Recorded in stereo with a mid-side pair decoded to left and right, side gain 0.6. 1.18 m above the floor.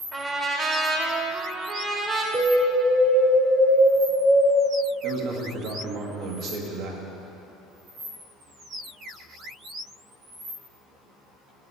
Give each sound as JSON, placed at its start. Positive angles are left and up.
{"t": 0.1, "sound": "a trumpet", "azimuth_deg": -30, "distance_m": 1.2}
{"t": 2.3, "sound": "an alarm", "azimuth_deg": -55, "distance_m": 1.6}
{"t": 5.0, "sound": "a man speaking", "azimuth_deg": -65, "distance_m": 1.2}